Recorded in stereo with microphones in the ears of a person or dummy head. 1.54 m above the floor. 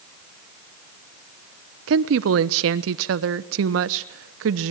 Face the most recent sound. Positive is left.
turn(degrees=-70)  # may be behind; listen again after turning